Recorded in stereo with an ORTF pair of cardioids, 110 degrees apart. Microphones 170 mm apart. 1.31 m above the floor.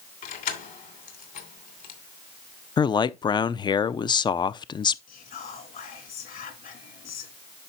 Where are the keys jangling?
60° left, 2.5 m.